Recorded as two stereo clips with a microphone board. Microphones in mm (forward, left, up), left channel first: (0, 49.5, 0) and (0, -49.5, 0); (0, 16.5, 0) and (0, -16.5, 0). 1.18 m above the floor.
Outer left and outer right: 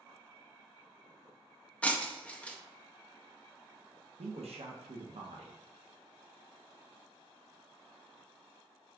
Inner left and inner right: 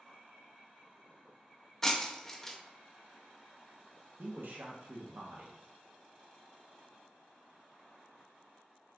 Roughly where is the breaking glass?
Centre.